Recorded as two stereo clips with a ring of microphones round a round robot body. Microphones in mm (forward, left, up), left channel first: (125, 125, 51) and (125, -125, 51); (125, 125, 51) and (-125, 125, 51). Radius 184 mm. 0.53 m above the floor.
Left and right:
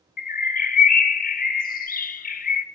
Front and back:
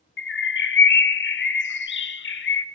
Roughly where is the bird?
Ahead left.